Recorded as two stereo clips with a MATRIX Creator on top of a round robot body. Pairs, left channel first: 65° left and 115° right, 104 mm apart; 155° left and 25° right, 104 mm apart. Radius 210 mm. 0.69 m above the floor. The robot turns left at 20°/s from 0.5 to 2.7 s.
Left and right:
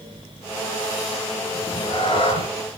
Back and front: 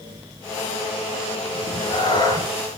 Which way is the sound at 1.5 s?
120° left.